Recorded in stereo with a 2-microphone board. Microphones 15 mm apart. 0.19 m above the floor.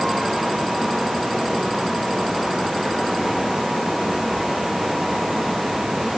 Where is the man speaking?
No man speaking in this recording.